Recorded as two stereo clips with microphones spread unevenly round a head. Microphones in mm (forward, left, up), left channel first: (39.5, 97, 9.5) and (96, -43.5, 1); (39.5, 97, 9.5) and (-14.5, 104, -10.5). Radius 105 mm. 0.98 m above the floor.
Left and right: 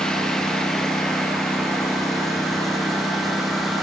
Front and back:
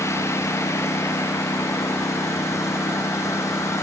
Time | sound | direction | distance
0.0 | a lawn mower | 25° left | ?